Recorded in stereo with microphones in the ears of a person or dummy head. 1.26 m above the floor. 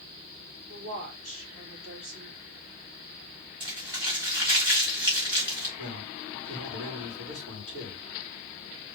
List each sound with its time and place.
0.7 s a woman speaking: 50° right (ahead or behind), 3 m
3.6 s crumpling: 15° right (ahead or behind), 1.8 m
5.8 s a man speaking: 60° right (ahead or behind), 3 m